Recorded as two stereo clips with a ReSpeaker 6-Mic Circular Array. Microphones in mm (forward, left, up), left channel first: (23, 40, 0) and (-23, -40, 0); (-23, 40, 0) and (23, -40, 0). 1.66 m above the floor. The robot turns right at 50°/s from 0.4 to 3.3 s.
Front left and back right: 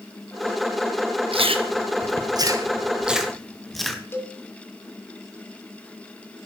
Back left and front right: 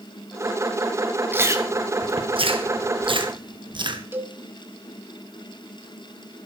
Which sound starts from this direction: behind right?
Chewing, at 1.3 s.